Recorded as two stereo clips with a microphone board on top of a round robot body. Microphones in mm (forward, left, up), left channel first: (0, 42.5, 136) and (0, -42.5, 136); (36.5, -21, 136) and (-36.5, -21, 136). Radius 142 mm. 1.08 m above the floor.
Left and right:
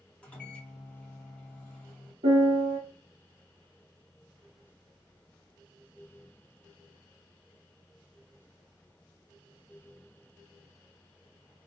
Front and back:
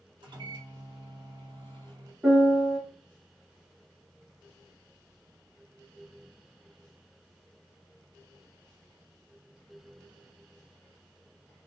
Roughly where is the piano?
Right.